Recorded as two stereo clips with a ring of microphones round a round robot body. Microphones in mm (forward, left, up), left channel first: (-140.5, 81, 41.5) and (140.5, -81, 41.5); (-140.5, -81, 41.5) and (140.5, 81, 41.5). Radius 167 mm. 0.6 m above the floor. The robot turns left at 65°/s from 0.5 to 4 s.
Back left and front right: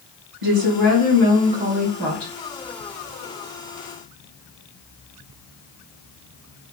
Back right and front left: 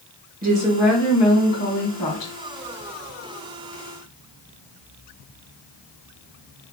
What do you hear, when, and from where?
0.4 s a woman speaking: 30° right, 1.8 m; by 2.3 s 150° right, 1.8 m